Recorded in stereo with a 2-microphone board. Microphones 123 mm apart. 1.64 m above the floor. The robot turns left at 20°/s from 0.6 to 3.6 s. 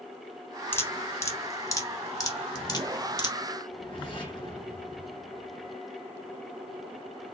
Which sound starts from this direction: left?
A whoosh, at 3.7 s.